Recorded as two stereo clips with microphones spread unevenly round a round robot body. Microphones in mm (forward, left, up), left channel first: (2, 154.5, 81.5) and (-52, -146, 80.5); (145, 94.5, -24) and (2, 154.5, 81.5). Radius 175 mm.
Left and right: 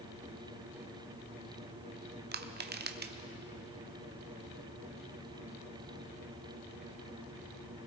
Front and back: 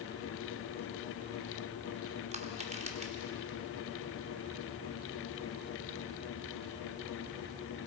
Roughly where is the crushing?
Behind right.